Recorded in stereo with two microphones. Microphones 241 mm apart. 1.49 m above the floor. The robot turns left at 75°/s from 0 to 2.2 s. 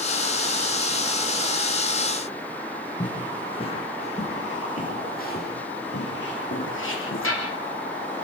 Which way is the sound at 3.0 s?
15° left (ahead or behind).